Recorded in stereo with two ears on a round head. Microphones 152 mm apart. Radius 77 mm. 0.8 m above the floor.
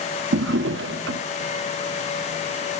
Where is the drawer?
85° right, 0.7 m.